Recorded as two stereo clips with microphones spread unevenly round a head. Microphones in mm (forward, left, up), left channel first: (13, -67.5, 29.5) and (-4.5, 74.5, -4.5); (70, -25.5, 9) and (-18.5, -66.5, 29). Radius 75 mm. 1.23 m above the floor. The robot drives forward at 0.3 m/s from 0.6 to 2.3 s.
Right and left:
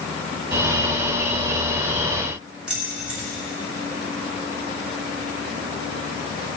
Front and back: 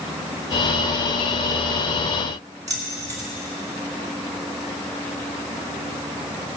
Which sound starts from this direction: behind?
Keys jangling, at 2.7 s.